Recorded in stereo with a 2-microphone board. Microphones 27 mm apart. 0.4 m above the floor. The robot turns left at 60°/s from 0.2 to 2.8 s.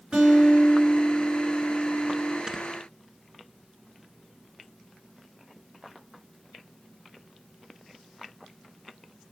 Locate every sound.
0.1 s a guitar: 145° right, 4 m; by 2.4 s 85° left, 4 m
2.5 s snoring: 20° right (ahead or behind), 1.1 m; by 2.6 s 10° right (ahead or behind), 1.1 m